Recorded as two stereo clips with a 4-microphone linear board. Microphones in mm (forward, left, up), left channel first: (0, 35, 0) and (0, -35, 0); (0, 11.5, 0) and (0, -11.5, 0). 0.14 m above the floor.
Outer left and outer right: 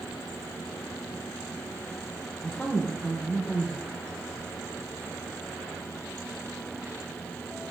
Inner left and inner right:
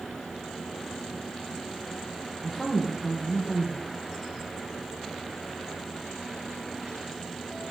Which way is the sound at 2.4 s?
20° left (ahead or behind).